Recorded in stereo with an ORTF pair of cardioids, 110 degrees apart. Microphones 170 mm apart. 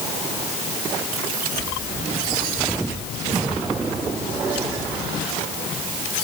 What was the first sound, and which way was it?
Only background noise.